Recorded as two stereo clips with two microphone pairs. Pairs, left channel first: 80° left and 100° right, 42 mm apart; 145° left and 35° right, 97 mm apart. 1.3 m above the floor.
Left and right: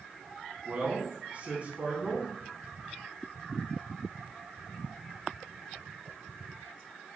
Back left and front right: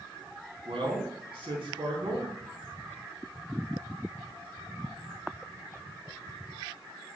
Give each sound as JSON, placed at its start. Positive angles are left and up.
{"t": 0.7, "sound": "a man speaking", "azimuth_deg": -45, "distance_m": 3.0}